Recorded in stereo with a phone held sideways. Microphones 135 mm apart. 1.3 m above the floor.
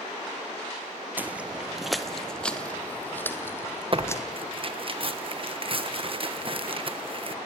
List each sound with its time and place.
1.2 s footsteps: 15° right (ahead or behind), 1.4 m; by 4.2 s 20° left (ahead or behind), 3 m
3.9 s tearing paper: 40° right (ahead or behind), 1.3 m